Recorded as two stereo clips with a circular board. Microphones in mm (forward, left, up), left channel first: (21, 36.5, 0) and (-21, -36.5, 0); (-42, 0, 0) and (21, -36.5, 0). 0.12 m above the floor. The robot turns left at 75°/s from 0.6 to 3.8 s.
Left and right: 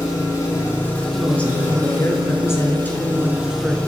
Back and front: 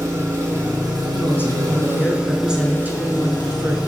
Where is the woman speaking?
140° left, 1.2 m; by 3.8 s 55° right, 1.2 m.